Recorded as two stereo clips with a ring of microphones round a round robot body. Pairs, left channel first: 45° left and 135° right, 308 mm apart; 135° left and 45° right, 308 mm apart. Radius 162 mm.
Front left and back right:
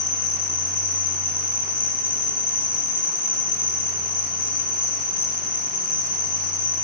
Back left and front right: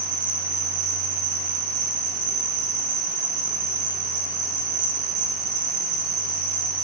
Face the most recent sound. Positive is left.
turn(degrees=-20)